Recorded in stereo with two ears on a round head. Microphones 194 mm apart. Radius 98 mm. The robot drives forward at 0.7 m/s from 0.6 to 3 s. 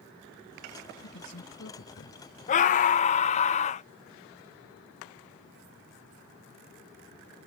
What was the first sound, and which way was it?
A man speaking, 65° left (ahead or behind).